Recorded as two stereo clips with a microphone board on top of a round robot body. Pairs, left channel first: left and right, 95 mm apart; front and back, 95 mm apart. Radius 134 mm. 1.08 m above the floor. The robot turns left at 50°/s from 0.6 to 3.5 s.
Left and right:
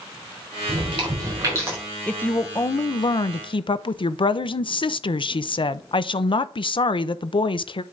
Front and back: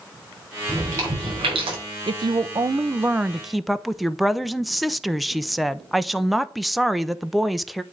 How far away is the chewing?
About 5 m.